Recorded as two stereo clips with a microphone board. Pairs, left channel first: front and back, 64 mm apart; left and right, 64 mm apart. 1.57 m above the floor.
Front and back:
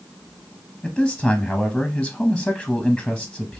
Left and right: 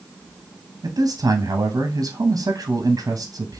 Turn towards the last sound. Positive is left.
turn(degrees=-85)